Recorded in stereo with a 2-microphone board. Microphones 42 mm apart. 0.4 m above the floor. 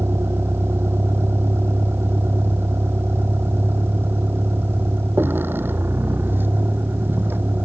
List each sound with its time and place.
0.0 s a vehicle: 80° right; by 7.7 s 60° right (ahead or behind)